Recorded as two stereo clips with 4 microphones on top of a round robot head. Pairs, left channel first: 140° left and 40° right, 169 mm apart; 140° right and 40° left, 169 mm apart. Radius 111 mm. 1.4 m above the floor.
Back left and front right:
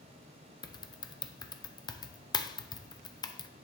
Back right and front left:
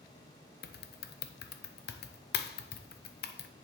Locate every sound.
0.6 s typing on a keyboard: 155° right, 0.7 m